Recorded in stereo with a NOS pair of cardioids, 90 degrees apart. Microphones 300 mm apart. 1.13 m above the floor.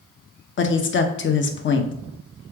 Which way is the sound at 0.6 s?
40° left.